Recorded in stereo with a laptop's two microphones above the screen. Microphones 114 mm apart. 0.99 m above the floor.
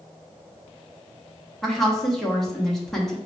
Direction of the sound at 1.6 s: Centre (ahead or behind).